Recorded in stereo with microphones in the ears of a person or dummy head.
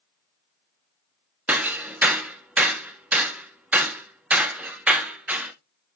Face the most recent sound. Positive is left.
turn(degrees=-5)  # may be behind; listen again after turning